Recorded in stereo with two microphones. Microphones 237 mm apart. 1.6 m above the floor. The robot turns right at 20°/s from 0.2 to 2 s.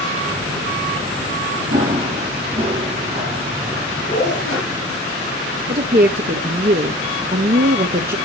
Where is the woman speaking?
40° right (ahead or behind), 0.9 m.